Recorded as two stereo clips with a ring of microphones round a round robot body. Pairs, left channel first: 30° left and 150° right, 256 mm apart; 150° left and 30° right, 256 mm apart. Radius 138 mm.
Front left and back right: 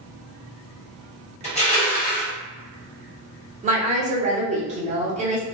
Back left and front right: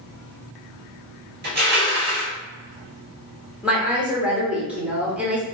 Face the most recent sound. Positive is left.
turn(degrees=-110)